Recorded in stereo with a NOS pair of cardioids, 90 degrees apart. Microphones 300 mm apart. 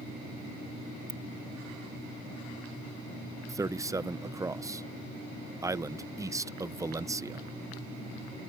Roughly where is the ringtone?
Ahead right.